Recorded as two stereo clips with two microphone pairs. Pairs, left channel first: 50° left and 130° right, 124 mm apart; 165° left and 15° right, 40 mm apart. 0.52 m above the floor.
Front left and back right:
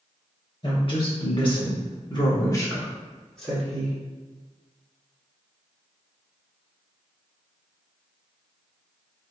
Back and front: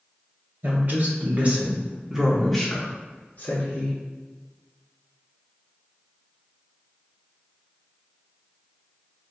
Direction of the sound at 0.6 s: 10° left.